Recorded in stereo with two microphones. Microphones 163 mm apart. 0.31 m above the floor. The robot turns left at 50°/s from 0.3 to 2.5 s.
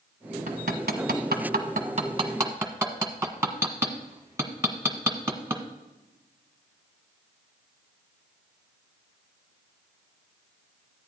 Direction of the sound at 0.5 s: 60° right (ahead or behind).